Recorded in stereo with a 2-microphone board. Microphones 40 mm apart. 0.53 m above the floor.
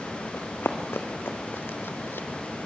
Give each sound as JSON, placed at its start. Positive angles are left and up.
{"t": 0.3, "sound": "running footsteps", "side_deg": 75, "distance_m": 2.0}